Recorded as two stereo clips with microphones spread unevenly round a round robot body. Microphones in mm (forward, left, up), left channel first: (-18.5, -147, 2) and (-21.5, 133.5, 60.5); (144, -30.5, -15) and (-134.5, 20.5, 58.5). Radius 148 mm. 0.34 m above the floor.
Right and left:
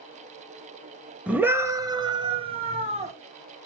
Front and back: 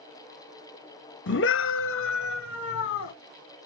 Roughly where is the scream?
Ahead.